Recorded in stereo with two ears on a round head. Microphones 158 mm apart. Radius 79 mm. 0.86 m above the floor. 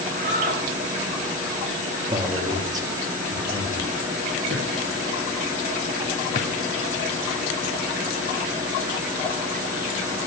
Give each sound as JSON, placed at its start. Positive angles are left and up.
{"t": 0.1, "sound": "a shout", "side_deg": -50, "distance_m": 3.5}
{"t": 2.1, "sound": "a man speaking", "side_deg": -20, "distance_m": 1.6}
{"t": 4.5, "sound": "a drawer", "side_deg": -45, "distance_m": 4.5}
{"t": 6.3, "sound": "a drawer", "side_deg": 50, "distance_m": 1.3}